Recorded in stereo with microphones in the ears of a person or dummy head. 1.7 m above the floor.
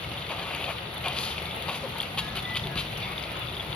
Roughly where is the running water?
Centre.